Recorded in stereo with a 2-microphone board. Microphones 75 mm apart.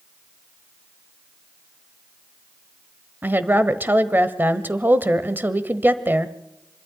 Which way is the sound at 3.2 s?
25° right (ahead or behind).